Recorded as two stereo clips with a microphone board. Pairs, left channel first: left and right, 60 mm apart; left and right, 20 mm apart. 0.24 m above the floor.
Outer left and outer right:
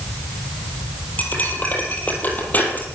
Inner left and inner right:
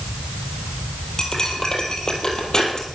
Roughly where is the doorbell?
I don't hear a doorbell.